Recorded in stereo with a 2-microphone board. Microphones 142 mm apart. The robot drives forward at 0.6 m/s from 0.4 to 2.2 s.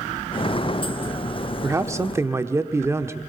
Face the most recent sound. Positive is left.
turn(degrees=-20)  # may be behind; listen again after turning